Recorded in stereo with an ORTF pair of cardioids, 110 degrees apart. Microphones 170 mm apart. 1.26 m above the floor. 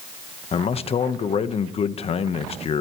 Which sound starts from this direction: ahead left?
A man speaking, at 0.5 s.